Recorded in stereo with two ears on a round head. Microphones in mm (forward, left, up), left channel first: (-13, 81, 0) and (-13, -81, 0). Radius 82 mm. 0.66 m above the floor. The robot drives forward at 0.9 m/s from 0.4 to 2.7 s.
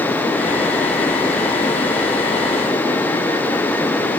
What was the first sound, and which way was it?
Only background noise.